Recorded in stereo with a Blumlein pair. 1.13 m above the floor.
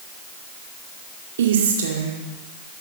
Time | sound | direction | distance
1.4 | a woman speaking | 60° right | 2 m